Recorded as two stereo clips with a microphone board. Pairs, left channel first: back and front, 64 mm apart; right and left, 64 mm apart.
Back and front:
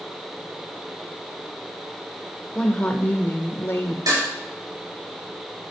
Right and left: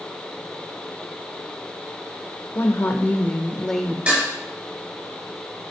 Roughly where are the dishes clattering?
Ahead.